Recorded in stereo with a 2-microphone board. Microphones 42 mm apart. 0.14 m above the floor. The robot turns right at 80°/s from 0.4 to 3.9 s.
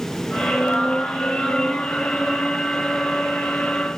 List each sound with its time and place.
Only background noise.